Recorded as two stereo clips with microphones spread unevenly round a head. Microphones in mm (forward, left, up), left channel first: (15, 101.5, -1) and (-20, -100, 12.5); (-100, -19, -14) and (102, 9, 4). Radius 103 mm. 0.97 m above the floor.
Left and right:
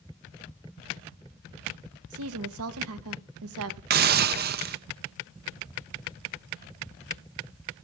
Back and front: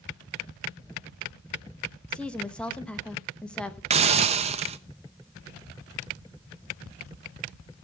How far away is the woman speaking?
About 1.0 m.